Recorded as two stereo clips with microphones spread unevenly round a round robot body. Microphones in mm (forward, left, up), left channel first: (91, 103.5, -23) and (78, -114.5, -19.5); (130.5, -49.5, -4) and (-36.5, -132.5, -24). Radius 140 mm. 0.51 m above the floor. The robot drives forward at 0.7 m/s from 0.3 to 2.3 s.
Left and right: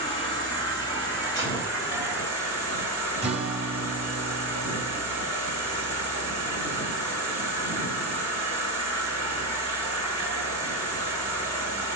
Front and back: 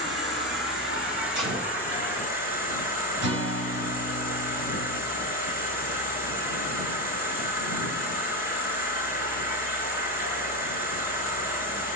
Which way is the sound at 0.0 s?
160° left.